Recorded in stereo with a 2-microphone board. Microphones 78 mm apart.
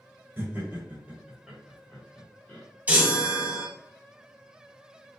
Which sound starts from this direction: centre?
A chime, at 2.9 s.